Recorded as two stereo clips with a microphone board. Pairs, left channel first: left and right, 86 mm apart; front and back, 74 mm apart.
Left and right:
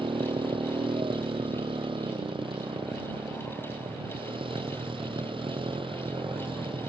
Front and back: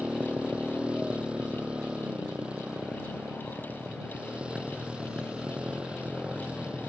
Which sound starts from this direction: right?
A motorcycle, at 0.0 s.